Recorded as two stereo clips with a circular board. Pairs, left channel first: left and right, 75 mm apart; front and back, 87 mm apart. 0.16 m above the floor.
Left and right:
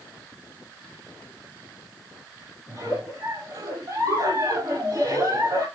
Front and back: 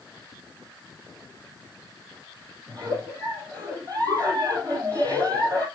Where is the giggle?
140° right, 3.5 m.